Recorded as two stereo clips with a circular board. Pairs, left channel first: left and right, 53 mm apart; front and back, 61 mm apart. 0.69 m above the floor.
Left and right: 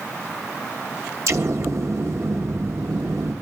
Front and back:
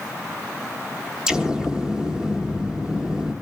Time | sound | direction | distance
1.3 | an explosion | 100° right | 1.2 m